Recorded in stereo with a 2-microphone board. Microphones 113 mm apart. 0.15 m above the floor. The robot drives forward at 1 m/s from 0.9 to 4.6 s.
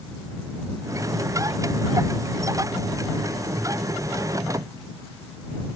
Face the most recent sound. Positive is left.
No sound to turn to.